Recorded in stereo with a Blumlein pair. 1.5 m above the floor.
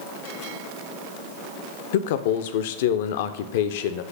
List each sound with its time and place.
1.9 s a man speaking: 55° left, 0.6 m